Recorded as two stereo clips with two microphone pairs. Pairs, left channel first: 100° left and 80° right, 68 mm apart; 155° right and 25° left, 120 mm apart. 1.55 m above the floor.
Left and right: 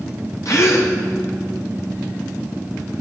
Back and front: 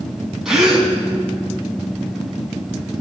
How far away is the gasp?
About 2 m.